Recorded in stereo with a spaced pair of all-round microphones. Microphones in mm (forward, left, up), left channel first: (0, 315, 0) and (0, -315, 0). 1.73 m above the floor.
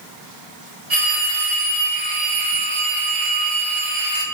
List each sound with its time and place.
0.9 s a phone ringing: 70° right (ahead or behind), 2.5 m